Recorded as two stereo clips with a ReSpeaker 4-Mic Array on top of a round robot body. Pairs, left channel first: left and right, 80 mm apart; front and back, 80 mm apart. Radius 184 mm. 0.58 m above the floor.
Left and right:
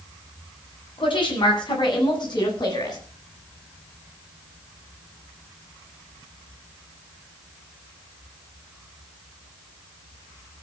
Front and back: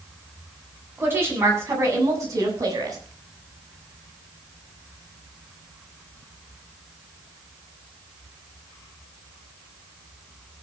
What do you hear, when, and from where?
1.0 s a woman speaking: 115° left, 8 m; by 3.0 s 130° left, 7.5 m